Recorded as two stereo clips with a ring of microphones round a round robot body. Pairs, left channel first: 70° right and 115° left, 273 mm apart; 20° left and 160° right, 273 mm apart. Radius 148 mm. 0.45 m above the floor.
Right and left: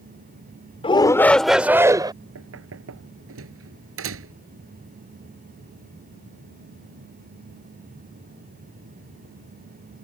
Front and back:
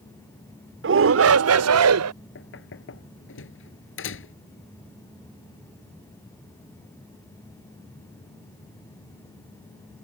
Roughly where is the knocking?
Left.